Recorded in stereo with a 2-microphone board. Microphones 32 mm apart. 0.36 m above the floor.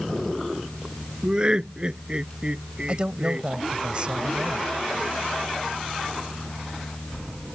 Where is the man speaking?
35° right (ahead or behind).